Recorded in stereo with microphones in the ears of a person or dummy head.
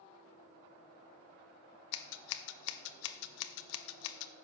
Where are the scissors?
75° left (ahead or behind), 0.6 m.